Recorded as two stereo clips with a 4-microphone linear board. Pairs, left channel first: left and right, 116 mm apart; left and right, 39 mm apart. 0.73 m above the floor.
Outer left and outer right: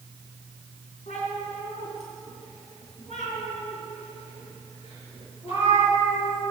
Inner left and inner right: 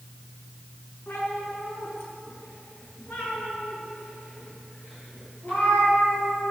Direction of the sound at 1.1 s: 80° left.